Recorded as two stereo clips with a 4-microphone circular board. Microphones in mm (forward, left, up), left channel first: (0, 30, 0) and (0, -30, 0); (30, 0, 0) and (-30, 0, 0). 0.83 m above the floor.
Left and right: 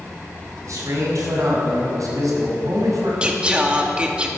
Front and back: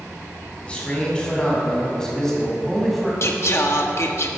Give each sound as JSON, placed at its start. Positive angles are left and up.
{"t": 0.6, "sound": "a man speaking", "azimuth_deg": -70, "distance_m": 5.0}
{"t": 3.2, "sound": "singing", "azimuth_deg": -25, "distance_m": 1.4}